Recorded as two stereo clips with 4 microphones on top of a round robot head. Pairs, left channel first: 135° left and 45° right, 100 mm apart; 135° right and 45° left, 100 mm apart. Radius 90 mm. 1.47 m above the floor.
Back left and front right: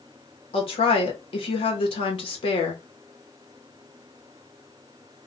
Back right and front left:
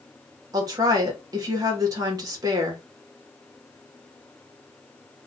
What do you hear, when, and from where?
0.5 s a woman speaking: 100° left, 1.0 m